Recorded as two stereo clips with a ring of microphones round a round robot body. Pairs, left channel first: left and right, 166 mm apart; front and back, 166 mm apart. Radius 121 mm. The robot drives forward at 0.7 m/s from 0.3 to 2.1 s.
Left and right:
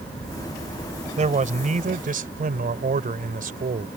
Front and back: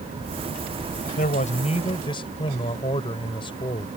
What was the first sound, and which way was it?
A man speaking, 50° right.